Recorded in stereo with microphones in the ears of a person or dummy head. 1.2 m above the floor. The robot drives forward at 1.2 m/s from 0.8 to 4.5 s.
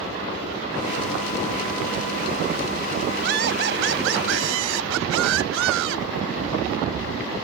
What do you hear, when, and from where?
3.2 s laughter: 70° right (ahead or behind); by 6.1 s 80° right